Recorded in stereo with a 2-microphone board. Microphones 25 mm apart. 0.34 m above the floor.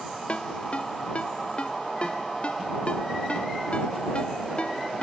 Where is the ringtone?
50° left (ahead or behind).